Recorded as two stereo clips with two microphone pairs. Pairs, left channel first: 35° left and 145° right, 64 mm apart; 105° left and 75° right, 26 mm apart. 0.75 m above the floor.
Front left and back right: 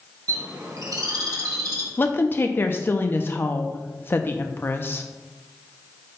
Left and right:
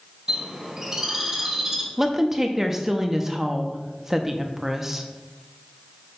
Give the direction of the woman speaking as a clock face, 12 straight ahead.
12 o'clock.